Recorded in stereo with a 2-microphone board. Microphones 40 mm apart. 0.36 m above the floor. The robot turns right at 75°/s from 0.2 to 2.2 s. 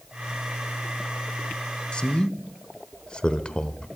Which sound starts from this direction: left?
A man speaking, at 1.9 s.